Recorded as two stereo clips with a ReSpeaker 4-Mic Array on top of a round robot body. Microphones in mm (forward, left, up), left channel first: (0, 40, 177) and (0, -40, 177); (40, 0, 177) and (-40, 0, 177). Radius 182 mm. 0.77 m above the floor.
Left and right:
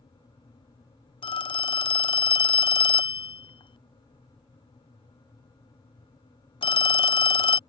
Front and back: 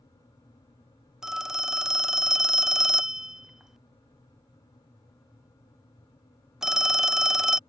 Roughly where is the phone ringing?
Left.